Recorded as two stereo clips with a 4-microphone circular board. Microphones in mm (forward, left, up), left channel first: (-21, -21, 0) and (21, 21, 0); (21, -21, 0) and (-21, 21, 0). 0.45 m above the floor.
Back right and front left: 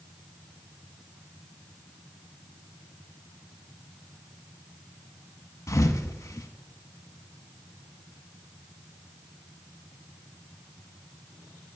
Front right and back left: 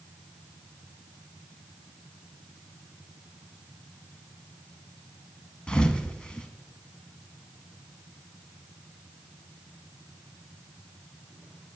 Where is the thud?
115° right, 0.7 m.